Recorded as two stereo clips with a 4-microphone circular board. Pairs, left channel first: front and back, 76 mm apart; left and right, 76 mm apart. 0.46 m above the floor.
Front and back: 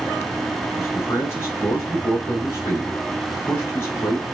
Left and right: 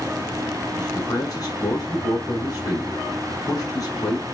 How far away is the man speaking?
About 5 m.